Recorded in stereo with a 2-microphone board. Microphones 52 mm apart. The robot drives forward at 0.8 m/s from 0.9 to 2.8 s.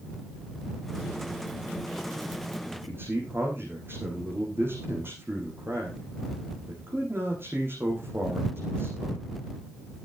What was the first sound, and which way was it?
A man speaking, 50° right (ahead or behind).